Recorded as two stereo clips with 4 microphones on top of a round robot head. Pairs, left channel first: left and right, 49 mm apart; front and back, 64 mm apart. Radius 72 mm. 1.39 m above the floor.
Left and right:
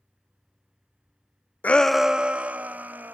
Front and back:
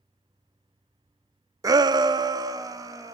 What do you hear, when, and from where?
1.6 s a shout: 150° left, 0.6 m; by 3.1 s 145° right, 2.5 m